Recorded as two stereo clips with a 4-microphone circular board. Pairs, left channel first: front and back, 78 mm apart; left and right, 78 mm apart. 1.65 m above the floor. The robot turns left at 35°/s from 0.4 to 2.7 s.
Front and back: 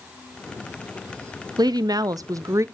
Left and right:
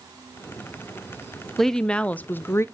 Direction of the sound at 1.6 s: 175° left.